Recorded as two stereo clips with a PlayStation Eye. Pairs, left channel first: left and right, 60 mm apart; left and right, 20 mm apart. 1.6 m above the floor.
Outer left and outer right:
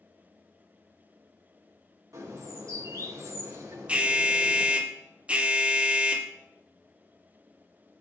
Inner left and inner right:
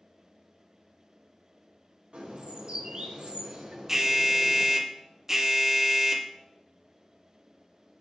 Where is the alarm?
20° right (ahead or behind), 1.0 m.